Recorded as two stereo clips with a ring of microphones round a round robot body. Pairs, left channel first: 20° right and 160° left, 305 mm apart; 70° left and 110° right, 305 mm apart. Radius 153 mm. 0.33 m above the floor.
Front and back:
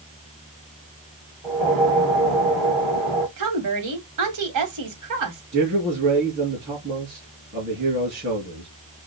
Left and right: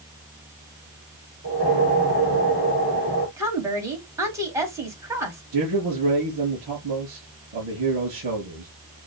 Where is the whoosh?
165° right, 4.5 m.